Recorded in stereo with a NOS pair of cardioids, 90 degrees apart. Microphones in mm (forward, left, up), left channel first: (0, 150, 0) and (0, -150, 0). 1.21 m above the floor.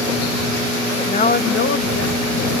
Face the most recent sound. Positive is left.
turn(degrees=55)